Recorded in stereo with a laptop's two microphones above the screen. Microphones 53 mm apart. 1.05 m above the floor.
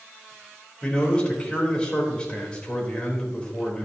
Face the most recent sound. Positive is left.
turn(degrees=20)  # may be behind; listen again after turning